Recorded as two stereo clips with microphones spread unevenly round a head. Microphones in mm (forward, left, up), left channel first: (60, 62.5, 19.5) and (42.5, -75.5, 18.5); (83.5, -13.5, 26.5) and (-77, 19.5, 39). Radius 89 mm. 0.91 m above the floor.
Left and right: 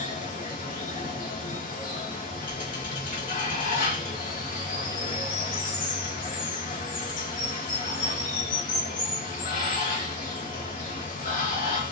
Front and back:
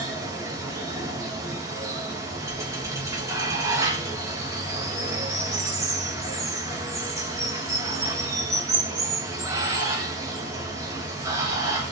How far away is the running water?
About 0.7 m.